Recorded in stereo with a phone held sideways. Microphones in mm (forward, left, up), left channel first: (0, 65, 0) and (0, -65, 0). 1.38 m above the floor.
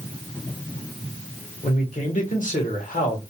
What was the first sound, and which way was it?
A man speaking, 85° left.